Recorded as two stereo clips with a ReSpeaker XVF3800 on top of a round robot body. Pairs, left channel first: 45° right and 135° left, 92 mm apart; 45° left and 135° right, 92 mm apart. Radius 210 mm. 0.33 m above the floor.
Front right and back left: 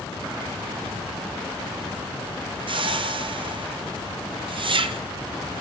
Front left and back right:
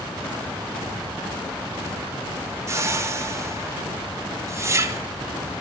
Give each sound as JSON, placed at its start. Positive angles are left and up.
{"t": 2.7, "sound": "a whoosh", "azimuth_deg": 165, "distance_m": 0.6}